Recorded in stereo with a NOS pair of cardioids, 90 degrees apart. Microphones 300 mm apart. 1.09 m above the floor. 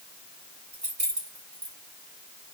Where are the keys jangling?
20° right, 2.5 m.